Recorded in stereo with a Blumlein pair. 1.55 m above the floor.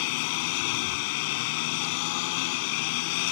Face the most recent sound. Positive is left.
turn(degrees=45)